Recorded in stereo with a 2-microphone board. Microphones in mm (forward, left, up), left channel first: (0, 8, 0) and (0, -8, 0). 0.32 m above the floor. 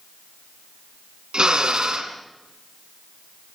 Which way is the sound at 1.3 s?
70° right (ahead or behind).